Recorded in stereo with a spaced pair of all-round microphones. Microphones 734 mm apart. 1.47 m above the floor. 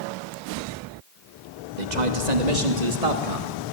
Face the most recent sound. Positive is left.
turn(degrees=-45)  # may be behind; listen again after turning